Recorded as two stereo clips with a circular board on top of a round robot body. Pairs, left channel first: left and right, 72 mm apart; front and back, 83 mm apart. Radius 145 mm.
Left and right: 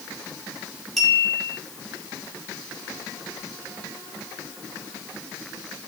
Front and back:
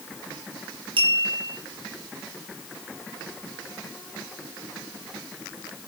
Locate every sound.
1.0 s a clink: straight behind, 6 m